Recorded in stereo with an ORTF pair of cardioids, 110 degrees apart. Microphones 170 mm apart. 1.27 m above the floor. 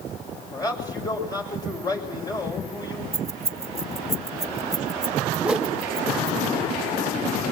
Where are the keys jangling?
20° right, 1.8 m.